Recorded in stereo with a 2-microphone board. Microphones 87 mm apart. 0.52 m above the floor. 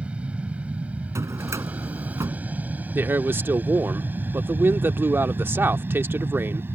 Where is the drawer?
35° right (ahead or behind).